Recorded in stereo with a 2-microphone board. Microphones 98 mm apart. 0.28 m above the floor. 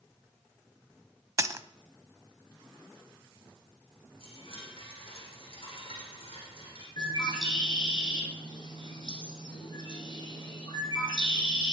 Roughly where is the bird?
Left.